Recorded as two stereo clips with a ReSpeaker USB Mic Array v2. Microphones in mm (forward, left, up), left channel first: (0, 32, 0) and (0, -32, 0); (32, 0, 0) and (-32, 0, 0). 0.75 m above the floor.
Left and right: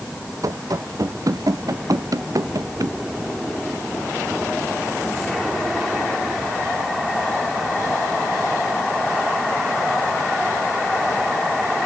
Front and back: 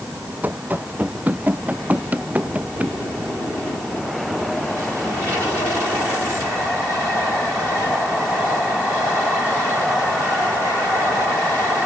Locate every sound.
0.4 s running footsteps: 115° right; by 3.0 s 110° right